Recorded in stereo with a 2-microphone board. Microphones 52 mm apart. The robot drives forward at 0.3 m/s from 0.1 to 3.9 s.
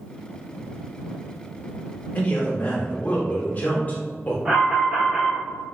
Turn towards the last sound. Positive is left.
turn(degrees=-20)  # may be behind; listen again after turning